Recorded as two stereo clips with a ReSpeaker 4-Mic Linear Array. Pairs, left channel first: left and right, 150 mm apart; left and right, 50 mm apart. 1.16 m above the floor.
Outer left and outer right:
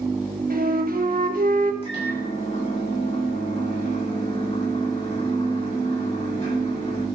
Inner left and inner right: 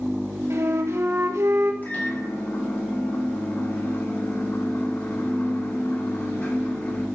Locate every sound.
0.5 s a flute: 65° right (ahead or behind), 1.5 m
1.8 s a microwave: 35° left (ahead or behind), 6 m